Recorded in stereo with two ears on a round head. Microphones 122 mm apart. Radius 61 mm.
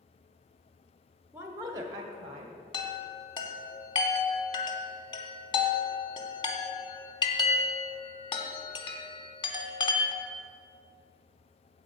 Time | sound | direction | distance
1.3 | a woman speaking | 15° right (ahead or behind) | 1.0 m
2.7 | a chime | 35° left (ahead or behind) | 1.0 m